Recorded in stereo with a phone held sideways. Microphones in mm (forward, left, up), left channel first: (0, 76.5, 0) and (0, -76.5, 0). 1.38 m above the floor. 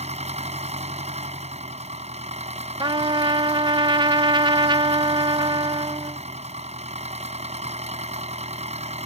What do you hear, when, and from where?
0.0 s an engine running: 45° right (ahead or behind)
2.8 s a trumpet: 30° right (ahead or behind)